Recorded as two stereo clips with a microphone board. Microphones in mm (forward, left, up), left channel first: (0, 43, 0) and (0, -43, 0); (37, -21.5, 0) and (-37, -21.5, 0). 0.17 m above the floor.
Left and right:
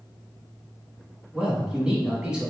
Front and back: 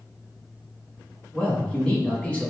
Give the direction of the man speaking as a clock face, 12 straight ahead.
1 o'clock.